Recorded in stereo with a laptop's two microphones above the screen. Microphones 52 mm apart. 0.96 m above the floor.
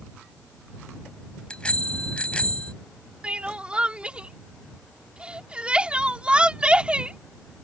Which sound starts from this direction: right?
Crying, at 3.2 s.